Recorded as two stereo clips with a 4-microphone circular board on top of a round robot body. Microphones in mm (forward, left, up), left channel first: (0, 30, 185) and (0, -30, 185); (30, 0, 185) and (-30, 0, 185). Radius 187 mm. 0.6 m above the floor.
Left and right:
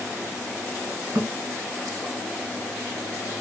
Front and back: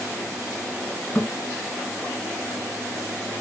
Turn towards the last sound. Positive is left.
turn(degrees=-60)